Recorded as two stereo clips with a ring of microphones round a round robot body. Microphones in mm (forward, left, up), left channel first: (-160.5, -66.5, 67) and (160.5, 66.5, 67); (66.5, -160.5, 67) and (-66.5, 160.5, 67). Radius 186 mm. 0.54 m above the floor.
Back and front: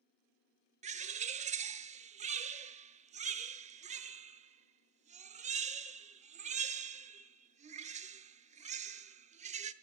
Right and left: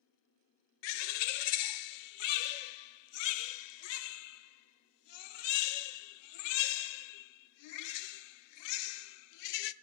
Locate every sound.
0.8 s a bird: 50° right, 0.6 m